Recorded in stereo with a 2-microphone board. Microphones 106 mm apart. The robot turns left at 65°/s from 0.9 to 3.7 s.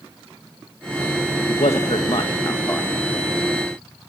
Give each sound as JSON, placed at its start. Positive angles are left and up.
{"t": 1.5, "sound": "a man speaking", "azimuth_deg": 100, "distance_m": 1.8}